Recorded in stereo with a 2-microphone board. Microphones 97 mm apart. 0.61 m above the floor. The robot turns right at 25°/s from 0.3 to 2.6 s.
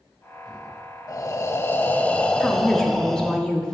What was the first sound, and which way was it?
Breathing, 135° left.